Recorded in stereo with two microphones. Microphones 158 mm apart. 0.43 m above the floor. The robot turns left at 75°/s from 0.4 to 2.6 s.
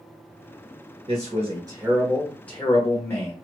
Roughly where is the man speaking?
Right.